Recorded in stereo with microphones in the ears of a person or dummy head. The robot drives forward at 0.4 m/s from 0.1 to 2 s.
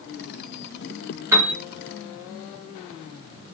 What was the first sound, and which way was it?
A piano, 15° right (ahead or behind).